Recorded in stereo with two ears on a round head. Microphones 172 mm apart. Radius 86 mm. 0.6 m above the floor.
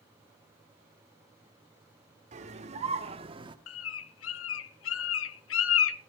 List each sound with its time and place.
2.3 s a scream: 40° right (ahead or behind), 2 m; by 3.6 s 25° right (ahead or behind), 1.4 m
3.7 s a bird: 75° left (ahead or behind), 0.8 m